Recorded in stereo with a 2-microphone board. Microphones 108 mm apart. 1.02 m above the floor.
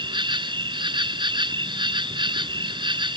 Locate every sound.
0.0 s an insect: 50° right (ahead or behind)